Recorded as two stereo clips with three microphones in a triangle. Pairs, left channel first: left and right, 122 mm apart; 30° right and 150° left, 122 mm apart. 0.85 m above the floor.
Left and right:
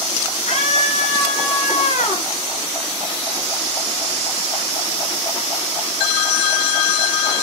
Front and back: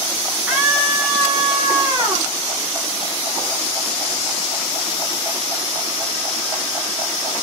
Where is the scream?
75° left, 4.5 m; by 2.3 s 95° left, 5 m.